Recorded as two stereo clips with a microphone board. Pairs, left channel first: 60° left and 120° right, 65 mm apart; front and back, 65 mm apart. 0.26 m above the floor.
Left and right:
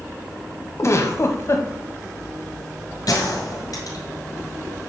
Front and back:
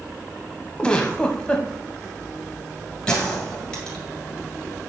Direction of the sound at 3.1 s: 75° left.